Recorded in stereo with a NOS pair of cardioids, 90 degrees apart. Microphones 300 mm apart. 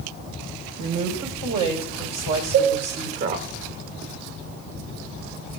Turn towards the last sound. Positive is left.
turn(degrees=-50)